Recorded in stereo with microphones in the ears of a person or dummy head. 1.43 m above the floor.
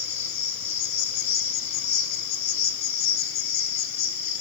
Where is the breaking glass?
No breaking glass in this recording.